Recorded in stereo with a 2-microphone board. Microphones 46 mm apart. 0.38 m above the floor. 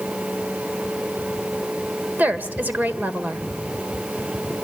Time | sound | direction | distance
2.2 | a woman speaking | 35° right (ahead or behind) | 1.7 m